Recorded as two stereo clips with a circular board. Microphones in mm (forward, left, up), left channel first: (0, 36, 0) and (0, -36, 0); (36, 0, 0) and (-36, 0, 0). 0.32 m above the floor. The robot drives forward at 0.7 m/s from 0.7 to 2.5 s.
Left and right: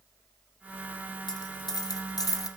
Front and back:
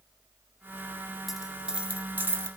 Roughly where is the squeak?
No squeak in this recording.